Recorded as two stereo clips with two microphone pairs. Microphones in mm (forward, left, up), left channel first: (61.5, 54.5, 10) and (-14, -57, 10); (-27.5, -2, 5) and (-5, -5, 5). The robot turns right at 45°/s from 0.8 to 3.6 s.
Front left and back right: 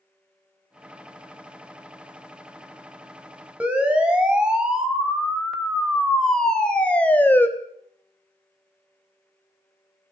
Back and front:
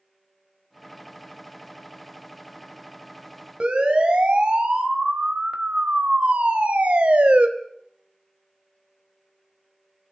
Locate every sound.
3.6 s a siren: 45° right, 4.5 m; by 7.5 s 20° right, 2.5 m